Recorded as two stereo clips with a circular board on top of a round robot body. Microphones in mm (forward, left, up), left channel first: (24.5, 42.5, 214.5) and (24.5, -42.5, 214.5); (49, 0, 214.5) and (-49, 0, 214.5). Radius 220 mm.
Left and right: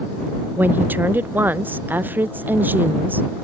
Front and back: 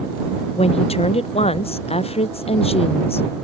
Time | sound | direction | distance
0.6 | a woman speaking | 20° right | ?